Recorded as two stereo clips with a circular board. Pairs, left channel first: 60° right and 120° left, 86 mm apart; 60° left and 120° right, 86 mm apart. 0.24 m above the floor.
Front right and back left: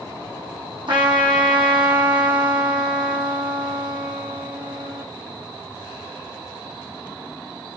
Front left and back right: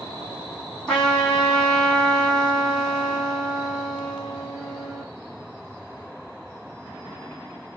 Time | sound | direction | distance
0.9 | a trumpet | 140° left | 2 m